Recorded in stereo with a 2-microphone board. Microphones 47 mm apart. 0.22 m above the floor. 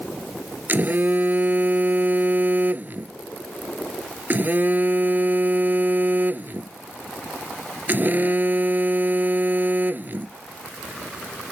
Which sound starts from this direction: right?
A phone buzzing, at 0.7 s.